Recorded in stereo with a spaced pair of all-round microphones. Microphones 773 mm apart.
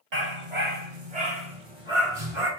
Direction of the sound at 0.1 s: 60° right (ahead or behind).